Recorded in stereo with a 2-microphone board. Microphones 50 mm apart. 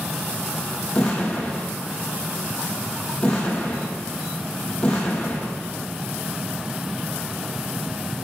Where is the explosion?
20° left (ahead or behind), 2 m.